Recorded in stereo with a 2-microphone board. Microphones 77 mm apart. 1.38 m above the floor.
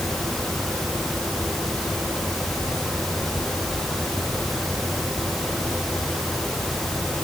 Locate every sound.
Only background noise.